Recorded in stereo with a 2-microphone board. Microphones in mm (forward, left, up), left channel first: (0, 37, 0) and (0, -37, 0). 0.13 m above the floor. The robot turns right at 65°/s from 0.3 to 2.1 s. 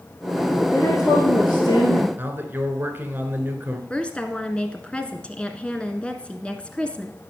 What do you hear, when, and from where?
0.7 s a woman speaking: 25° left, 2.5 m; by 2.1 s 115° left, 2.5 m
2.2 s a man speaking: 25° right (ahead or behind), 2 m
3.9 s a woman speaking: 15° left (ahead or behind), 1.2 m